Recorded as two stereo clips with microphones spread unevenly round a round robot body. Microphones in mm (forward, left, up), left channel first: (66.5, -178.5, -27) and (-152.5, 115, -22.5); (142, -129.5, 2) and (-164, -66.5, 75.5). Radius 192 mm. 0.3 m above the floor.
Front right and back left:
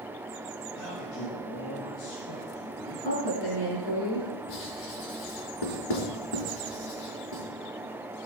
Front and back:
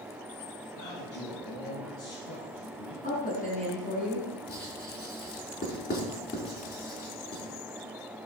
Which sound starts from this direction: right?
A woman speaking, at 3.0 s.